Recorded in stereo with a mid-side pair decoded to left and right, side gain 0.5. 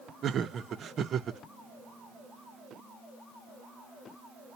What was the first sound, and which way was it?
Laughter, 50° right.